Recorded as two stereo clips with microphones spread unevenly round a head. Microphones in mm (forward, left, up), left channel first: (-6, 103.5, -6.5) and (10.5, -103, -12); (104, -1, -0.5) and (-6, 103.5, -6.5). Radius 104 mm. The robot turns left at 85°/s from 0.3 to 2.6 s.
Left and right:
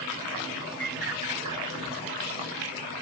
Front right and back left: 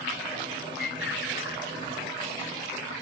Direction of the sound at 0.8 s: 30° right.